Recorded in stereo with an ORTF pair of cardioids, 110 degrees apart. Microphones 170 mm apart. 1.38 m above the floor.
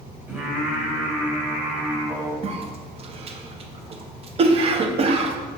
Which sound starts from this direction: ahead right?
A cough, at 2.4 s.